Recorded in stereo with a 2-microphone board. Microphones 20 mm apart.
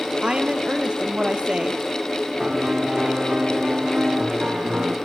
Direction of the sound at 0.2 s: 65° right (ahead or behind).